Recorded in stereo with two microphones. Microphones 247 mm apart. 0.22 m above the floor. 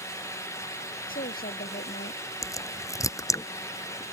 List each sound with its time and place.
1.1 s a woman speaking: 35° left (ahead or behind); by 2.2 s 40° left (ahead or behind)
2.4 s a crack: 10° left (ahead or behind)